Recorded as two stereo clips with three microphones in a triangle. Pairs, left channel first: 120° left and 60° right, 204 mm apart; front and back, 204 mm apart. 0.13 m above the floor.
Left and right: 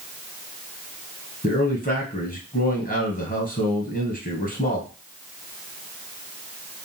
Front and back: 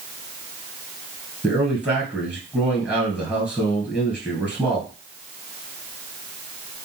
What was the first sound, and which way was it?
A man speaking, 95° left.